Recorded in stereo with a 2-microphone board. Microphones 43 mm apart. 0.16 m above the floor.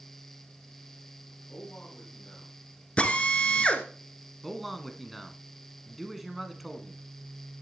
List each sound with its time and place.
1.5 s a man speaking: 35° left (ahead or behind), 8.5 m
3.0 s a drill: 30° left (ahead or behind), 1.2 m
4.4 s a man speaking: centre (ahead or behind), 1.4 m